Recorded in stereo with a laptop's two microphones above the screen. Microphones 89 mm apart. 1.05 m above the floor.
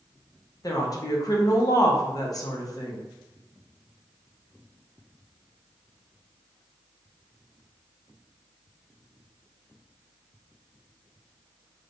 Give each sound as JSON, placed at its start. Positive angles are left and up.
{"t": 0.6, "sound": "a woman speaking", "side_deg": 45, "distance_m": 0.7}